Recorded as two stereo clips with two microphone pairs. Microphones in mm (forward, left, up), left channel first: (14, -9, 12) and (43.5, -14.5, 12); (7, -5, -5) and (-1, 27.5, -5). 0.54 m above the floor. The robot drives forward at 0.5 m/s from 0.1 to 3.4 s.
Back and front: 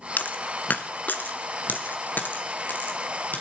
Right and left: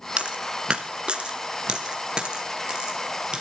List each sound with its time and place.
0.2 s a dropped coin: 160° left, 1.3 m; by 3.4 s 170° left, 3 m